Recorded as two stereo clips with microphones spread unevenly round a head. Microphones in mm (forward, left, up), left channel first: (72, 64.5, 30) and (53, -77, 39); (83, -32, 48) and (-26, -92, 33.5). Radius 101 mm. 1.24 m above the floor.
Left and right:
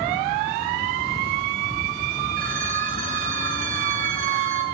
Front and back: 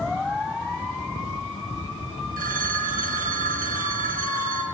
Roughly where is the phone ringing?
Behind right.